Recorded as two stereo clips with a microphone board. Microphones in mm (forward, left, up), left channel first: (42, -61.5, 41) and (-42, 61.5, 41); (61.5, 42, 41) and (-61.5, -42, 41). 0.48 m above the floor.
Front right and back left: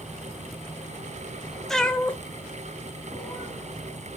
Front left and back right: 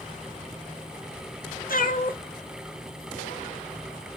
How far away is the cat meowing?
About 0.6 m.